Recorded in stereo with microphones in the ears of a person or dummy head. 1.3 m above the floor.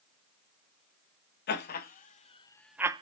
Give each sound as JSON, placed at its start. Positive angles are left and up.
{"t": 1.5, "sound": "laughter", "side_deg": 50, "distance_m": 1.4}